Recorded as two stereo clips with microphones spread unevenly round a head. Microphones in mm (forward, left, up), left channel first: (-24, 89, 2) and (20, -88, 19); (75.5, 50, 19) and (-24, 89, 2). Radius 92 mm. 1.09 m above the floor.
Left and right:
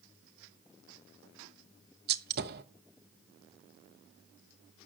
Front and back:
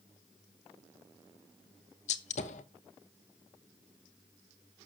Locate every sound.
2.1 s a gunshot: 40° right, 0.9 m